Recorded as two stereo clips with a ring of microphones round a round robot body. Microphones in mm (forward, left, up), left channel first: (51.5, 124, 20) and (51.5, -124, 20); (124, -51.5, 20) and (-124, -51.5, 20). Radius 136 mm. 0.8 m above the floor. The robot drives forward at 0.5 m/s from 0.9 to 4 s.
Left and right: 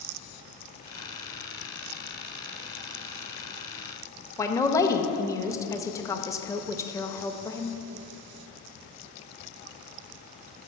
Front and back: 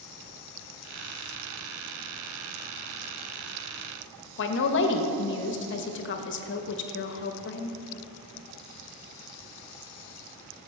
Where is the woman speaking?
15° left, 0.6 m.